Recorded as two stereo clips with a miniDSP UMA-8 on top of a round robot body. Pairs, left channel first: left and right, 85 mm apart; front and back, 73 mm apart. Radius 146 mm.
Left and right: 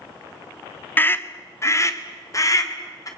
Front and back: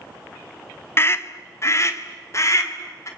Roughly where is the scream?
Ahead left.